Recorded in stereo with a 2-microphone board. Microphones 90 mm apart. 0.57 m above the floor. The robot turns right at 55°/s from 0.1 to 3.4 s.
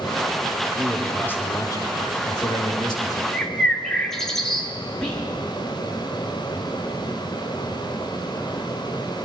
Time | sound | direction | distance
0.8 | a man speaking | 5° right | 1.7 m
3.3 | a bird | 10° left (ahead or behind) | 1.2 m
5.0 | whispering | 10° left (ahead or behind) | 1.3 m